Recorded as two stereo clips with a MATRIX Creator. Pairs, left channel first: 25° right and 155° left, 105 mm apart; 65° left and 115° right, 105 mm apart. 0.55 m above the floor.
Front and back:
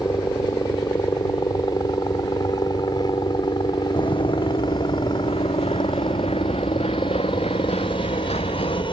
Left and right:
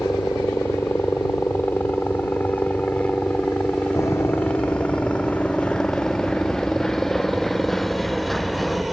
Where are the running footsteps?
10° left; by 8.8 s 20° right.